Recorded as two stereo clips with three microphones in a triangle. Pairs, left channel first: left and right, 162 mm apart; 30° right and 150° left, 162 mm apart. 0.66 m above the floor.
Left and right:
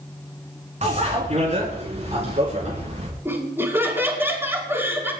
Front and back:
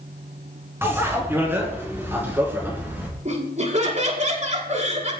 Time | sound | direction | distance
0.8 | a bicycle bell | 135° right | 5.5 m
3.2 | laughter | 165° right | 6 m